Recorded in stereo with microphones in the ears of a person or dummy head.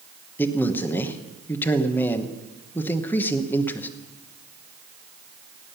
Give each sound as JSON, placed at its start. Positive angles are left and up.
{"t": 0.4, "sound": "a man speaking", "side_deg": 20, "distance_m": 1.1}